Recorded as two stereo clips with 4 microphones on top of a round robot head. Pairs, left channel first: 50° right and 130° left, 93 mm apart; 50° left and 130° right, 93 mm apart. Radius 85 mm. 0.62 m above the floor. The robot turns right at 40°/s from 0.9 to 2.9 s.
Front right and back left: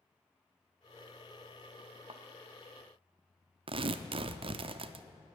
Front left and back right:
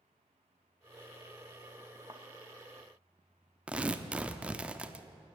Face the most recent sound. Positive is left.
turn(degrees=150)